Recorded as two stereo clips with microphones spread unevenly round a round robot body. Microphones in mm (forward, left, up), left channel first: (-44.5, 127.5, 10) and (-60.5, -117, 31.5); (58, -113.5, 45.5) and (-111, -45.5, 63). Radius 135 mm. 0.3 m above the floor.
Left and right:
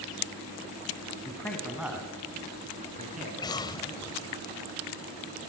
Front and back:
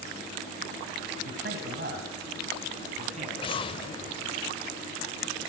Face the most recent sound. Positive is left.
turn(degrees=20)